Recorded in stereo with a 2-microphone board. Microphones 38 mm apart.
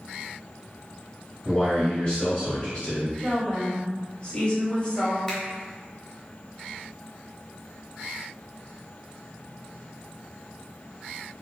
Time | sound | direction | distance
1.4 | a man speaking | 15° left (ahead or behind) | 1.0 m
3.2 | a woman speaking | 25° left (ahead or behind) | 0.9 m
5.3 | a finger snap | 15° left (ahead or behind) | 0.7 m